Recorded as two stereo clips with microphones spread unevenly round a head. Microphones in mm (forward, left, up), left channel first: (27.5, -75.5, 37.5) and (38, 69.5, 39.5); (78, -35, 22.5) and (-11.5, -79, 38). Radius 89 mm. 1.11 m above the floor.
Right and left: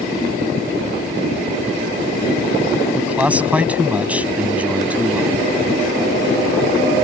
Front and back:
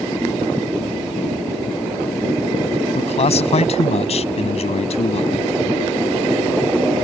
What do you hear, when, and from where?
3.0 s a man speaking: 5° left